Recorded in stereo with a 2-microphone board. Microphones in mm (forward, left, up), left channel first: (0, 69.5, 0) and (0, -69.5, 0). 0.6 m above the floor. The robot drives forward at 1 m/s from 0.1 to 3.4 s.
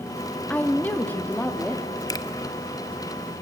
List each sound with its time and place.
0.5 s a woman speaking: 10° left (ahead or behind), 1.0 m
2.1 s a finger snap: 25° left (ahead or behind), 0.7 m